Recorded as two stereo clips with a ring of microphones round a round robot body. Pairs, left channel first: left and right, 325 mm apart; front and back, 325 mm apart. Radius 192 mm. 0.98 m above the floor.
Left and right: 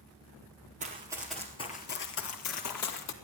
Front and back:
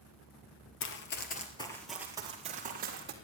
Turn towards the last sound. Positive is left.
turn(degrees=120)